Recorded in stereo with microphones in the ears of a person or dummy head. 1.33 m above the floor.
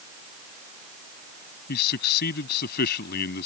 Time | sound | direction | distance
1.7 | a man speaking | 60° left (ahead or behind) | ?